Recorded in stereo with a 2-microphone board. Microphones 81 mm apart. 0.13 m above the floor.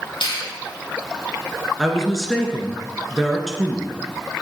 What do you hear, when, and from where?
0.2 s a finger snap: 75° left (ahead or behind), 5 m
1.8 s a woman speaking: centre (ahead or behind), 1.7 m